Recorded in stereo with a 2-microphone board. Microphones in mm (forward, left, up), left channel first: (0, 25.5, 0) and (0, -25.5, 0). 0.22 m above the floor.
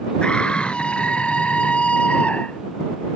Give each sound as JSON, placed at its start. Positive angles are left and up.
{"t": 0.2, "sound": "a scream", "side_deg": 20}